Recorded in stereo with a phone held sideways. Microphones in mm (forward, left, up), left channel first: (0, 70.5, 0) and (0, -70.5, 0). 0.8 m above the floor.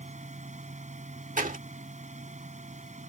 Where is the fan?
60° right (ahead or behind).